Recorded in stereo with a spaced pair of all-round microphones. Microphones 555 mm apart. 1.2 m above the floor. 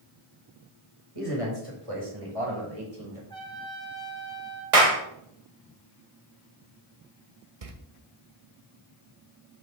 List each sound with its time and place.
1.1 s a man speaking: 70° right (ahead or behind), 5 m; by 3.2 s 85° right, 4.5 m
3.3 s a trumpet: 10° left (ahead or behind), 2.0 m
4.7 s a clap: 75° right (ahead or behind), 1.5 m
7.6 s a door slam: 80° right, 1.2 m